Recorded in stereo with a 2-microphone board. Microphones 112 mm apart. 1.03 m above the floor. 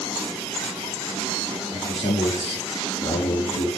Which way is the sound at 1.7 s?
80° left.